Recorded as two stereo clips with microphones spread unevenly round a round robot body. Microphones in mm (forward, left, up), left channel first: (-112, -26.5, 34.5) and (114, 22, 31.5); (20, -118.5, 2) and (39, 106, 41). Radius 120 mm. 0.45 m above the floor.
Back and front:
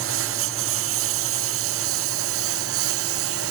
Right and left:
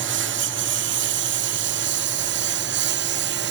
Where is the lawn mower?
45° left.